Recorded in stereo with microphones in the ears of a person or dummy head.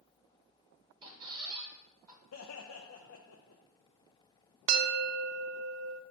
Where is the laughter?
65° left (ahead or behind), 0.7 m.